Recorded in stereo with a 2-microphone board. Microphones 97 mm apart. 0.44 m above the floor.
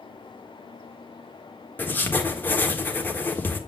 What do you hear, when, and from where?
1.8 s writing: 20° left (ahead or behind), 1.3 m